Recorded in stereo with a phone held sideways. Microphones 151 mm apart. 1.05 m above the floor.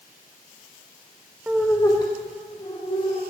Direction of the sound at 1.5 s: 10° right (ahead or behind).